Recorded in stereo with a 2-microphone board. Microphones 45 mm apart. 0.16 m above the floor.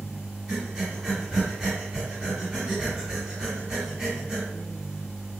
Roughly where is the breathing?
Centre.